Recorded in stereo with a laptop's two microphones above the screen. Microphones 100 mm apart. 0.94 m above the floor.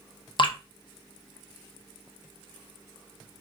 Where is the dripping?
55° left (ahead or behind), 0.5 m.